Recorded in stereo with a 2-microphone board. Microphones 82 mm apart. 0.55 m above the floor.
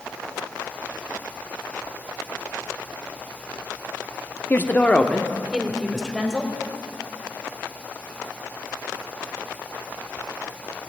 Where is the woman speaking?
30° left (ahead or behind), 0.7 m; by 6.5 s centre (ahead or behind), 2.5 m.